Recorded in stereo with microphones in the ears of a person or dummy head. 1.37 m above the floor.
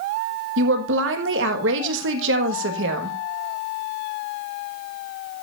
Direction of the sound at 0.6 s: 75° right (ahead or behind).